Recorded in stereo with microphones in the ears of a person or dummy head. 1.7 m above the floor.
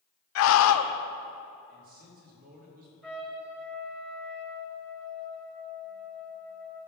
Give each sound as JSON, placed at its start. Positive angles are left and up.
{"t": 0.3, "sound": "a scream", "side_deg": 70, "distance_m": 0.8}
{"t": 1.7, "sound": "a man speaking", "side_deg": -45, "distance_m": 3.0}
{"t": 3.0, "sound": "a trumpet", "side_deg": 0, "distance_m": 2.0}